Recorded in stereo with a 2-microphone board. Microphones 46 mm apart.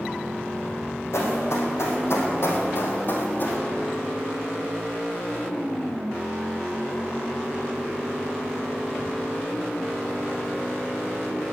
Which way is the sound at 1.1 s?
70° left (ahead or behind).